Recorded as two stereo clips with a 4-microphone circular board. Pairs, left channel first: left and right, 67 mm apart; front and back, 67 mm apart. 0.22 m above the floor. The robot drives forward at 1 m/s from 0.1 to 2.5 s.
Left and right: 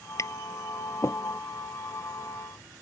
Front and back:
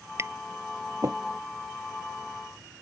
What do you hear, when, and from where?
0.2 s tapping: 130° left; by 1.2 s 135° left